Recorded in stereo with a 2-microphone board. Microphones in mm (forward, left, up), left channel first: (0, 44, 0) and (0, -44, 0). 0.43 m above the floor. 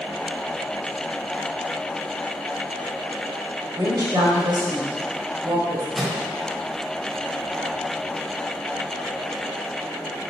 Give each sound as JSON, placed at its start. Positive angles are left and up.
{"t": 3.8, "sound": "a woman speaking", "side_deg": -50, "distance_m": 2.0}
{"t": 6.0, "sound": "a microwave", "side_deg": -5, "distance_m": 1.3}